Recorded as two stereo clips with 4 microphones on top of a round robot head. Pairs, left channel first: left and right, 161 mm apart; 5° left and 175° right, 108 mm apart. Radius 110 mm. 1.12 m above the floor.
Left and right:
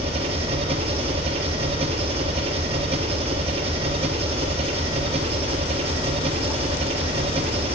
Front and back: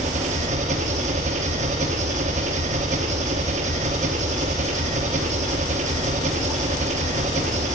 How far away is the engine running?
About 0.9 m.